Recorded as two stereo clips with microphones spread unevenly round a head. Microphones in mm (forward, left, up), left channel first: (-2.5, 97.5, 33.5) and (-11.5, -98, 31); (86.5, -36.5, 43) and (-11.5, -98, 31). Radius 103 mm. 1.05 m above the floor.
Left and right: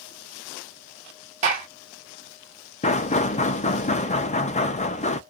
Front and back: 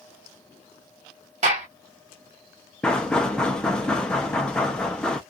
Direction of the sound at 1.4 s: 145° right.